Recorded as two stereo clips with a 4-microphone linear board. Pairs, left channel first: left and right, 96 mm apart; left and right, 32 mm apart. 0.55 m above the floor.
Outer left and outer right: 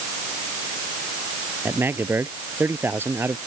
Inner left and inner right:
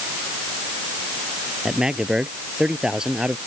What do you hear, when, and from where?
1.6 s a man speaking: 20° right (ahead or behind)